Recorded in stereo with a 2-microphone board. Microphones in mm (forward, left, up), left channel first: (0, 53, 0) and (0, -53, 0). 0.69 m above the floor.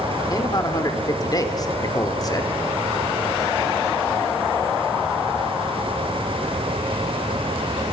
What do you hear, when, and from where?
0.3 s a man speaking: 35° left (ahead or behind), 2 m